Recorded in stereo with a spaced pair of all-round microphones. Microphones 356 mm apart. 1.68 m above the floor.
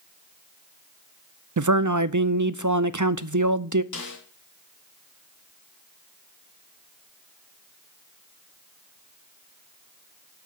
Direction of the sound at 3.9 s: 55° left (ahead or behind).